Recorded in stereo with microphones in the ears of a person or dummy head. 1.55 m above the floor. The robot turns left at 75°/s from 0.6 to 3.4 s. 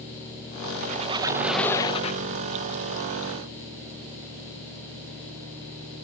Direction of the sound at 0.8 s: 125° right.